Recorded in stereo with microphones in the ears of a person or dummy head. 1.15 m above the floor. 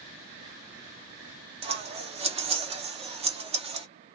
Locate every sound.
1.6 s scissors: 30° right (ahead or behind), 0.5 m